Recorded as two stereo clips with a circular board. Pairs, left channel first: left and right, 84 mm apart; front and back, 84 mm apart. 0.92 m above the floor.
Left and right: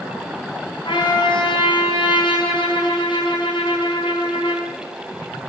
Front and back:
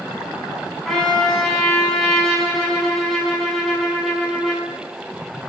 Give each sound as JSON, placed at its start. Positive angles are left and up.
{"t": 0.8, "sound": "a trumpet", "azimuth_deg": 85, "distance_m": 5.5}